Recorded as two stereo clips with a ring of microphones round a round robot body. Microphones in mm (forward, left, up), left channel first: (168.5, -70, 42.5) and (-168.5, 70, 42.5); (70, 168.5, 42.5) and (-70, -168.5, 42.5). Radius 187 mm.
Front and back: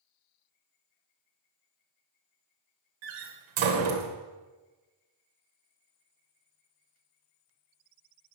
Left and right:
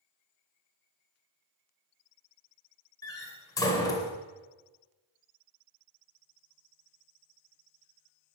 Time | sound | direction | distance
3.0 | a door slam | 150° left | 2.5 m